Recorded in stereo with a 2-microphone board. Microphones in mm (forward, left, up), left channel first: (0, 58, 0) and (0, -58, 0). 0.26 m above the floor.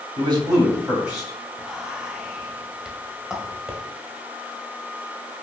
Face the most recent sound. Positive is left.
turn(degrees=-5)  # may be behind; listen again after turning